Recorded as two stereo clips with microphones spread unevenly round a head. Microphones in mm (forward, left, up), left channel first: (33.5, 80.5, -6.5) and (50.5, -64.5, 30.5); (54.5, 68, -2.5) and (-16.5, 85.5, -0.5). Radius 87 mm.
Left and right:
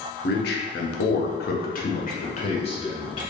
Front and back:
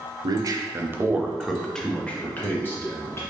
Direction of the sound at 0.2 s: 135° left.